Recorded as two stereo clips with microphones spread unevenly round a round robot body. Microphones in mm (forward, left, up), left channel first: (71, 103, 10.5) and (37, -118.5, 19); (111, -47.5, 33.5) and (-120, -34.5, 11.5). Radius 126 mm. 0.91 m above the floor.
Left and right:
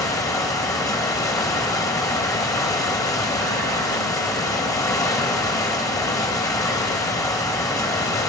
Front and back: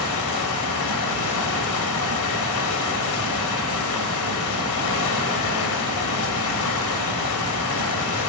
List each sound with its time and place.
0.0 s running water: 5° left, 2.5 m